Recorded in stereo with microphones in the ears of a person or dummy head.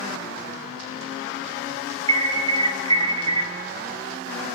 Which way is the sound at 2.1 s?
25° right (ahead or behind).